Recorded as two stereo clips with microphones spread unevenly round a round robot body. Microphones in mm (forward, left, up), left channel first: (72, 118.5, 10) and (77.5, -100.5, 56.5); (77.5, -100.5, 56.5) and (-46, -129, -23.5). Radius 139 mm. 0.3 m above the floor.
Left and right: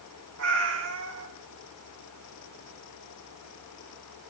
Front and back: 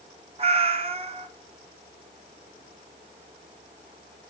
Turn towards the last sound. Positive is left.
turn(degrees=-135)